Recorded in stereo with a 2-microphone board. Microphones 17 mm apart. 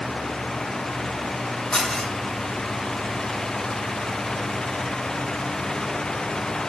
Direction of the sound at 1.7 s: 50° left (ahead or behind).